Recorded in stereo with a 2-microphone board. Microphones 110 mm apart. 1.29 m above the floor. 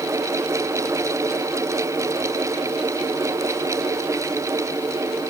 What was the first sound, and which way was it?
Only background noise.